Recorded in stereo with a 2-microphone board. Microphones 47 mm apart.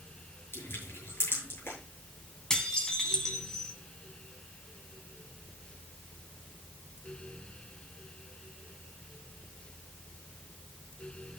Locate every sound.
0.5 s crushing: 55° left (ahead or behind), 7 m
2.5 s dishes clattering: 10° left (ahead or behind), 2.5 m